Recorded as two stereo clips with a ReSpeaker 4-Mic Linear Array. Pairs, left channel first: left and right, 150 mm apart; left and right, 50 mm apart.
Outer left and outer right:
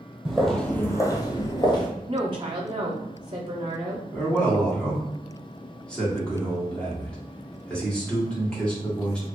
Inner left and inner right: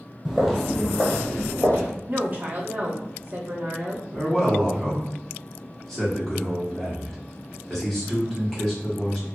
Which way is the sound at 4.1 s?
10° left (ahead or behind).